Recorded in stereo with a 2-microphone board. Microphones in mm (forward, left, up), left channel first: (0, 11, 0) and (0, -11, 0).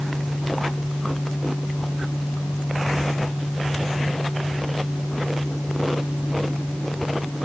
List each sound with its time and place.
Only background noise.